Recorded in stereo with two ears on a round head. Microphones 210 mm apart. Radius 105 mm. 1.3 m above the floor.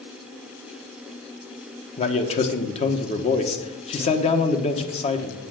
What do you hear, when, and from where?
2.0 s a man speaking: 25° left (ahead or behind), 1.2 m